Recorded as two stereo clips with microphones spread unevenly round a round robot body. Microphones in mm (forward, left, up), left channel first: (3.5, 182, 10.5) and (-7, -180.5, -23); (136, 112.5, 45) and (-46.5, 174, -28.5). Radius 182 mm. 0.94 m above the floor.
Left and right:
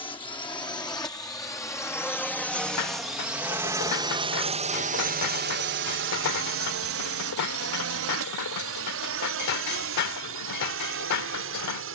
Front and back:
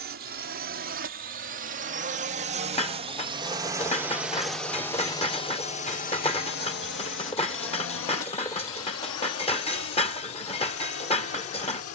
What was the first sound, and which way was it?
A drone, 165° left.